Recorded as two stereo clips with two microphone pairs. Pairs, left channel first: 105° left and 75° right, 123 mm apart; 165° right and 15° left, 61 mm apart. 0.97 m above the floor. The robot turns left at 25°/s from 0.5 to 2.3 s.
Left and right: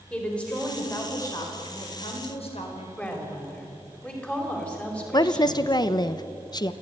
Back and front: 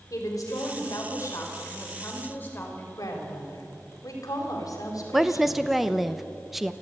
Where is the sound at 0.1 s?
175° right, 4.5 m; by 2.9 s 140° left, 4.5 m.